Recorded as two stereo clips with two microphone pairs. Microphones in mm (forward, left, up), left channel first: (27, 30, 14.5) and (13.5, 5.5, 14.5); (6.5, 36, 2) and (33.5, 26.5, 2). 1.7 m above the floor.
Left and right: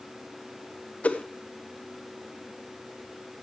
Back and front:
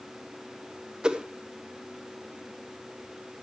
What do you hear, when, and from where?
1.0 s a whoosh: 35° left, 1.2 m